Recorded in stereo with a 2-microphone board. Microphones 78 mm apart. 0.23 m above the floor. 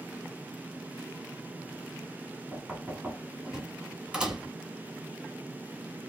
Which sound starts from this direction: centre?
Knocking, at 2.5 s.